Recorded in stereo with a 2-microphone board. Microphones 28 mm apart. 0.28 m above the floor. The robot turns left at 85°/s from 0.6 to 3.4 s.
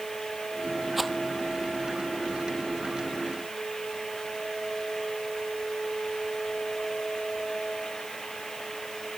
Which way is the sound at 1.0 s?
10° right (ahead or behind).